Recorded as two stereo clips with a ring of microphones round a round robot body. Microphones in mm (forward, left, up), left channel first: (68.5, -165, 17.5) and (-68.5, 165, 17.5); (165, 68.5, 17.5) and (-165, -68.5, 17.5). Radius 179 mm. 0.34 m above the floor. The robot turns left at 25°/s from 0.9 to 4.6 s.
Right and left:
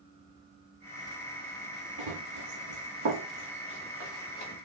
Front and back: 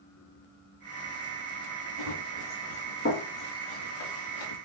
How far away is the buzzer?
No buzzer in this recording.